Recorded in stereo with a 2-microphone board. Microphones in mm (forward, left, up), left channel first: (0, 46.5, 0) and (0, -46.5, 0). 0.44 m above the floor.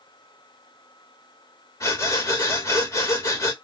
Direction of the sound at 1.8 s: 35° left (ahead or behind).